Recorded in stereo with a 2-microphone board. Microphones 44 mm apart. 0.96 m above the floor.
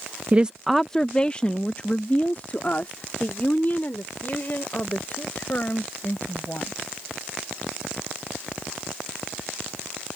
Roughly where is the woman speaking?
Right.